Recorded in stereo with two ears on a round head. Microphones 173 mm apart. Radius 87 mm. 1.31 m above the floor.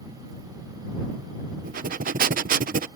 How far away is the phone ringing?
I don't hear a phone ringing.